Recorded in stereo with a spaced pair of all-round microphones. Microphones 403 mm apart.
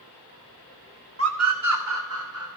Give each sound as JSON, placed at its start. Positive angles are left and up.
{"t": 1.2, "sound": "a scream", "side_deg": -35, "distance_m": 0.9}